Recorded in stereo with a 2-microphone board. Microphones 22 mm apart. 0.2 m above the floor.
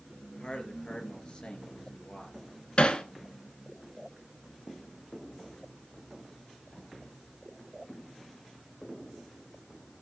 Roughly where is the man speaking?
Left.